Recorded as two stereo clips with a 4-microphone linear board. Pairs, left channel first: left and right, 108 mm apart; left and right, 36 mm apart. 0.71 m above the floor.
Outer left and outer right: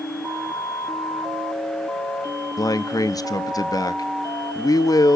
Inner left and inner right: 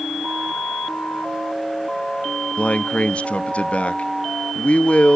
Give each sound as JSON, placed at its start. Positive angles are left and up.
{"t": 2.6, "sound": "a man speaking", "side_deg": 35, "distance_m": 0.6}